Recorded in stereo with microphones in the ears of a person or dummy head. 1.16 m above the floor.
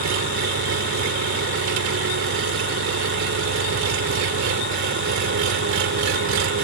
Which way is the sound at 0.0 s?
65° right (ahead or behind).